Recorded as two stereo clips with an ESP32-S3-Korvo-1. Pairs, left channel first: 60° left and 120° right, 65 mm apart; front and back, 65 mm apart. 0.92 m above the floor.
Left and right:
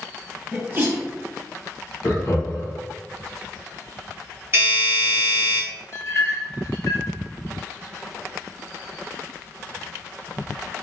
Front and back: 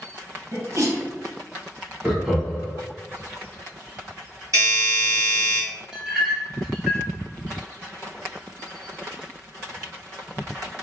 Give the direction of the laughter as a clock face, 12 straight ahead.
9 o'clock.